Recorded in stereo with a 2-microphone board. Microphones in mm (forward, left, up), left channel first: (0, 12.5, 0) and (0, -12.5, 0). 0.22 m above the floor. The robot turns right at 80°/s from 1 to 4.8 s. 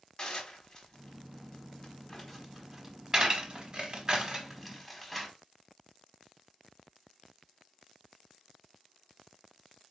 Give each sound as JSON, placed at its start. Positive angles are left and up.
{"t": 0.2, "sound": "dishes clattering", "side_deg": 30, "distance_m": 1.0}